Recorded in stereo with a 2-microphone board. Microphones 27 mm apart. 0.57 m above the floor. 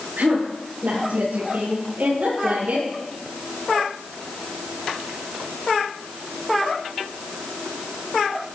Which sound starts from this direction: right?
A woman speaking, at 0.2 s.